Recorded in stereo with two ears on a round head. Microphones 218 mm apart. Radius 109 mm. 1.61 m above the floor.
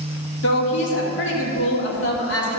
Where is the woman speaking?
50° left (ahead or behind), 2.5 m.